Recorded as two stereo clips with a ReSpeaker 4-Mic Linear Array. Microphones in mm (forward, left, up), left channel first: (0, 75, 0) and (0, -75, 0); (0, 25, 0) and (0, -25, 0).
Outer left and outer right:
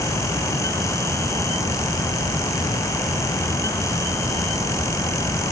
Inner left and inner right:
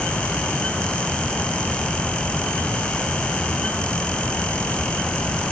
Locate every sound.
Only background noise.